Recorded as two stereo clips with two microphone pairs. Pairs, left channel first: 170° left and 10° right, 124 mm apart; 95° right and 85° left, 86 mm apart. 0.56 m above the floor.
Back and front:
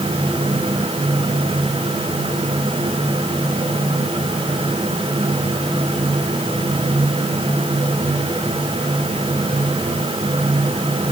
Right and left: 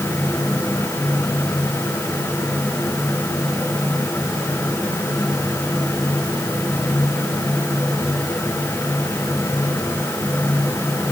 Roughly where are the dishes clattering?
No dishes clattering in this recording.